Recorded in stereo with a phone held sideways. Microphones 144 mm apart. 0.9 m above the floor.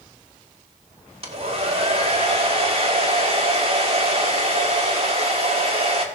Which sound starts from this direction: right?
A hair dryer, at 1.2 s.